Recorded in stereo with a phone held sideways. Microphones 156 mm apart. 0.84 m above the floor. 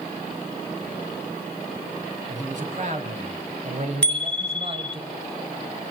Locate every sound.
2.3 s a man speaking: 55° right (ahead or behind), 4.5 m; by 5.0 s 40° right (ahead or behind), 3.5 m
4.0 s a bicycle bell: 10° left (ahead or behind), 3 m